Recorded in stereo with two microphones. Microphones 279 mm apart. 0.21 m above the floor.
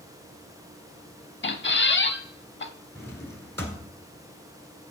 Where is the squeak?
40° left (ahead or behind), 0.5 m.